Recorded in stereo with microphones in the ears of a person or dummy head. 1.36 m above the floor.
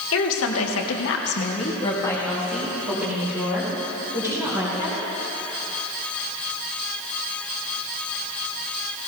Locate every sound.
0.1 s a woman speaking: 75° left (ahead or behind), 2 m; by 5.0 s 25° right (ahead or behind), 5 m